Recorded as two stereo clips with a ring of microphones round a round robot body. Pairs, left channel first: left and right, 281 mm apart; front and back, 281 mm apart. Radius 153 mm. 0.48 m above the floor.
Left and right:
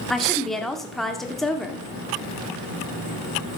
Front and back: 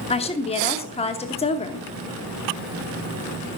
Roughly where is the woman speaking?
Ahead.